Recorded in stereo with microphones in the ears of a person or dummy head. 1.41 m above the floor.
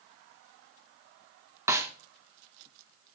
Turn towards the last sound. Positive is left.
turn(degrees=-20)  # may be behind; listen again after turning